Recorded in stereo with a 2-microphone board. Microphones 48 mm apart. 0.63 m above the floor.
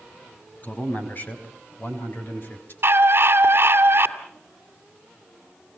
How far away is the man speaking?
About 4.5 m.